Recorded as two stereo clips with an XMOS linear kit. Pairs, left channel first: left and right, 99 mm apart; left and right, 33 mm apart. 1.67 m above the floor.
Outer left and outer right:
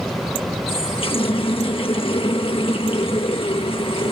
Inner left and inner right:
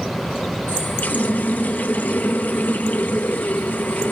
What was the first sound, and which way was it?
A running tap, 60° left (ahead or behind).